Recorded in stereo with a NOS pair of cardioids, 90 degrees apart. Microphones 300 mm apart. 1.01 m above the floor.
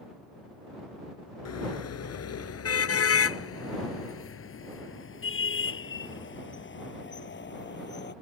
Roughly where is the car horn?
Ahead left.